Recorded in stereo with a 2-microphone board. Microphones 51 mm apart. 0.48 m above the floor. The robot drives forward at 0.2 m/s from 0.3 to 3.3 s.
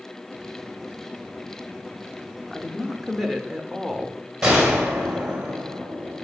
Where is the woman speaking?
5° left (ahead or behind), 0.8 m.